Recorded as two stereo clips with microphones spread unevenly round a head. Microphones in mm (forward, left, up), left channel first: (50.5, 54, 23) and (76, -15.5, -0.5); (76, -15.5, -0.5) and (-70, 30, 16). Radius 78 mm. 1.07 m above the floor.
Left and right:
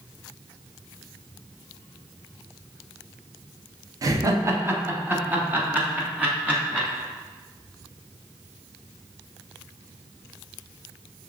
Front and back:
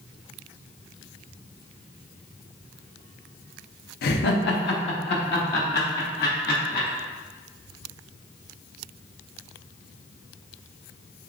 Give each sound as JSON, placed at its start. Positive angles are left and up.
{"t": 4.0, "sound": "laughter", "azimuth_deg": -40, "distance_m": 0.8}